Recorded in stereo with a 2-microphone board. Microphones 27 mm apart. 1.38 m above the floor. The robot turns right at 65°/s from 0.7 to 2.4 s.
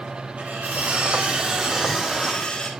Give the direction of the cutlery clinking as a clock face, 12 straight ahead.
3 o'clock.